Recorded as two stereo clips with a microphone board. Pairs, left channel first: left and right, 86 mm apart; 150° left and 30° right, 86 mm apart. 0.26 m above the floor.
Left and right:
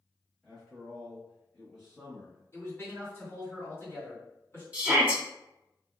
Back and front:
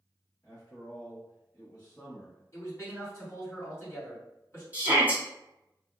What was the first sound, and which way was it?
A man speaking, 175° left.